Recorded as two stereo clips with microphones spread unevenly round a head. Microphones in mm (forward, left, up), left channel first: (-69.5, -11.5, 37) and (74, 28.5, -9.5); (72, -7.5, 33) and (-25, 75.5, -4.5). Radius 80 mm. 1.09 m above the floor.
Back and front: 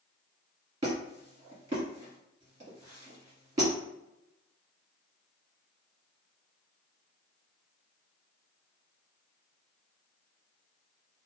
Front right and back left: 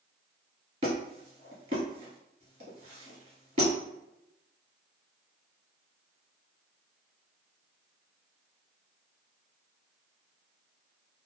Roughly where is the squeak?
Left.